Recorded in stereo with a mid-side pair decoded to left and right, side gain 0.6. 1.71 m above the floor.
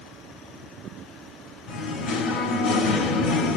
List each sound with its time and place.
1.7 s singing: 50° left, 4.5 m